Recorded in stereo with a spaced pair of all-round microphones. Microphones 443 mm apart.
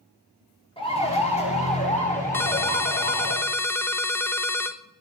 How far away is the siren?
About 3.5 m.